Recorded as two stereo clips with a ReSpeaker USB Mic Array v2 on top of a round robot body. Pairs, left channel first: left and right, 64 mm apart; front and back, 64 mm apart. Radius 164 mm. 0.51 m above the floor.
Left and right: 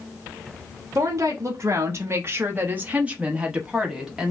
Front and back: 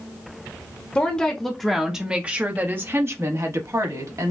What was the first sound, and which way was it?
A woman speaking, 70° right.